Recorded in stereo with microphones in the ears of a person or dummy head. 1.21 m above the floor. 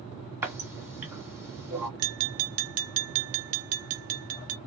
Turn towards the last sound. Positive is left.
turn(degrees=-75)  # may be behind; listen again after turning